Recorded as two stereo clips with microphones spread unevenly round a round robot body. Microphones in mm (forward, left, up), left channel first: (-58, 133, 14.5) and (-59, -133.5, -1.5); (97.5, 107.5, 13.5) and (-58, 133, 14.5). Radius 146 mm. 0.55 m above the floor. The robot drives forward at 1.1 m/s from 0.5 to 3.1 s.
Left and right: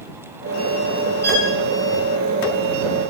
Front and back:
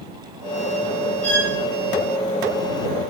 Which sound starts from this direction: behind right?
A violin, at 1.2 s.